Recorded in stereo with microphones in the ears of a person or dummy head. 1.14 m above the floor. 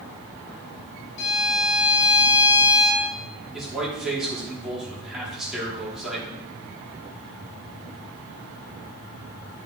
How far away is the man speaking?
About 3 m.